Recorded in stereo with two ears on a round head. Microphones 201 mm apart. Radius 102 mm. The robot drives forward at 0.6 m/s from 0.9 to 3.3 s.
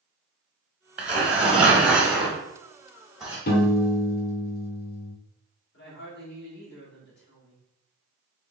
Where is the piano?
45° left (ahead or behind), 1.0 m.